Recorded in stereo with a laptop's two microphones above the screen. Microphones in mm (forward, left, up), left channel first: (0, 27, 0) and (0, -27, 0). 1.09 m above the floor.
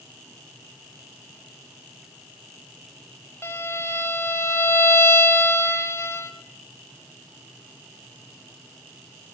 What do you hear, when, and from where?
3.4 s a violin: 55° left (ahead or behind), 3.5 m